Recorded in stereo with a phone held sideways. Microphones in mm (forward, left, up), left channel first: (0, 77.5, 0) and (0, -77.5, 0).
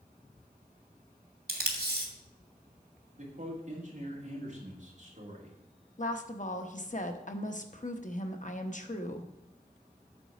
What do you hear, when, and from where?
1.5 s tape being pulled: 65° right (ahead or behind), 1.5 m
3.2 s a man speaking: 50° right (ahead or behind), 2.5 m
6.0 s a woman speaking: 50° left (ahead or behind), 0.8 m